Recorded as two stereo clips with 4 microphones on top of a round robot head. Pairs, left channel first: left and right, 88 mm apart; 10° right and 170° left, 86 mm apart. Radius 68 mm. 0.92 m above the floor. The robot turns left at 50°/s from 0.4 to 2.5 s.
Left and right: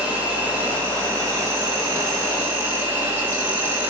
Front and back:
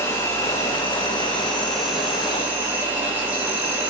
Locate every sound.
0.0 s an insect: 30° right, 1.2 m; by 3.9 s 135° right, 1.2 m